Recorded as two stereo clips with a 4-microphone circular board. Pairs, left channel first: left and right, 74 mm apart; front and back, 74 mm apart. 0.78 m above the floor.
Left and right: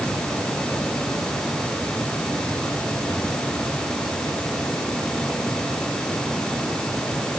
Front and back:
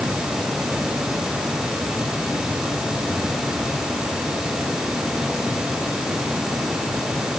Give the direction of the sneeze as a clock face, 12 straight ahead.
I don't hear a sneeze.